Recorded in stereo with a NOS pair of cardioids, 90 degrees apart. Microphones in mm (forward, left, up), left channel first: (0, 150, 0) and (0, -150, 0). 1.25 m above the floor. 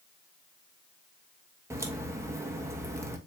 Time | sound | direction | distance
1.7 | a crack | 10° right | 1.0 m